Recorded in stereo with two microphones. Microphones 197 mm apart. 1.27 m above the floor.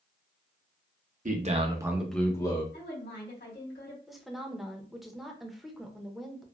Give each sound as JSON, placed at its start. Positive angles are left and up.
{"t": 1.2, "sound": "a man speaking", "side_deg": -40, "distance_m": 0.7}
{"t": 2.7, "sound": "a woman speaking", "side_deg": 60, "distance_m": 1.5}
{"t": 4.1, "sound": "a woman speaking", "side_deg": 0, "distance_m": 0.6}